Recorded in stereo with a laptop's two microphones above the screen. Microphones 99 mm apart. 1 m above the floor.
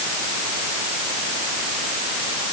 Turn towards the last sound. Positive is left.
No sound to turn to.